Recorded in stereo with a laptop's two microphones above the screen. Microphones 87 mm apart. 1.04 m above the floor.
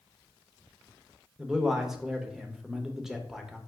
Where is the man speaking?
5° right (ahead or behind), 0.8 m.